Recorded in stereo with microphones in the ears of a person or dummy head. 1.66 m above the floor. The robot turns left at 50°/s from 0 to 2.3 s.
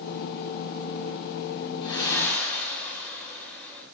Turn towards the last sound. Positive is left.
turn(degrees=10)  # may be behind; listen again after turning